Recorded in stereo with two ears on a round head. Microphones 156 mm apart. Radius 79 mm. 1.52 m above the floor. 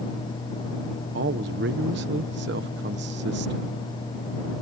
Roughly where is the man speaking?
Right.